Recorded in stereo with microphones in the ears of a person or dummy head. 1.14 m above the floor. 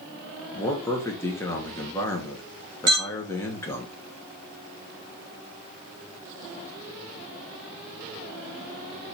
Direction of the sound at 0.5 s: 15° left (ahead or behind).